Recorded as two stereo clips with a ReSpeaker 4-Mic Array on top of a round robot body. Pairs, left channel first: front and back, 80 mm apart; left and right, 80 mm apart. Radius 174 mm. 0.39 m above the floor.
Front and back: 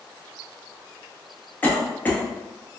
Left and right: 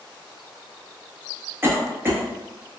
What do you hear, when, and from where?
1.6 s a cough: 55° right, 1.2 m